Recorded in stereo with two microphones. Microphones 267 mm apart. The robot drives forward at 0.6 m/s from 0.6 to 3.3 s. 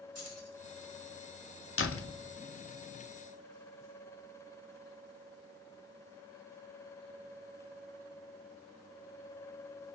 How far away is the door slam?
About 0.6 m.